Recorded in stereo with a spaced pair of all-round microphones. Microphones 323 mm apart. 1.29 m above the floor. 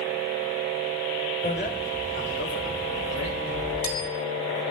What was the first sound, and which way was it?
A bicycle bell, 25° left (ahead or behind).